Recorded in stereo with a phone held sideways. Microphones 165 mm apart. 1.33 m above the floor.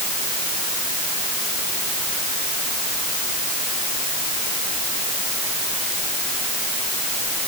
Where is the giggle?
I don't hear a giggle.